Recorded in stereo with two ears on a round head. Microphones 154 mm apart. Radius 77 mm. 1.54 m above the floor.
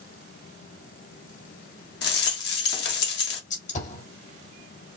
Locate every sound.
2.0 s a rattle: 70° left (ahead or behind), 1.7 m
3.5 s a gunshot: 45° left (ahead or behind), 1.9 m